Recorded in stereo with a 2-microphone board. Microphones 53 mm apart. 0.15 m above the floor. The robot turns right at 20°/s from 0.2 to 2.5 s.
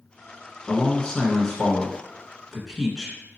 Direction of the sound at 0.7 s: 150° left.